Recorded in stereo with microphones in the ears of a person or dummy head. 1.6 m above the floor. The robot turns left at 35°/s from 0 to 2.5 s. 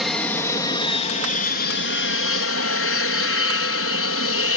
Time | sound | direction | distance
0.0 | an aircraft | straight behind | ?